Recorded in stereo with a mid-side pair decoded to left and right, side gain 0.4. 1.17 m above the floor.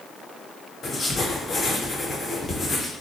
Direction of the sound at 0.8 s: 45° left.